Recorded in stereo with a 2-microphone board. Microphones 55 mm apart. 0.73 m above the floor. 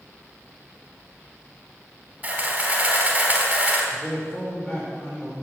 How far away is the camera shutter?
About 3 m.